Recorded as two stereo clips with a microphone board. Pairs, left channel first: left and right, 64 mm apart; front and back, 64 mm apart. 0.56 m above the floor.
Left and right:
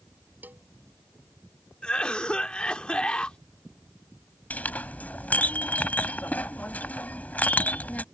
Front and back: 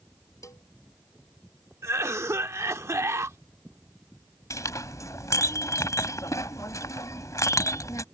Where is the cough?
160° left.